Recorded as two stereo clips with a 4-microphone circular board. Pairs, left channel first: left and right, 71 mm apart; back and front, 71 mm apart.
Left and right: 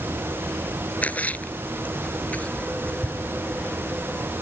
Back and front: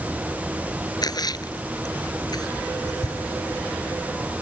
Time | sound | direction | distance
1.0 | a splash | 160° left | ?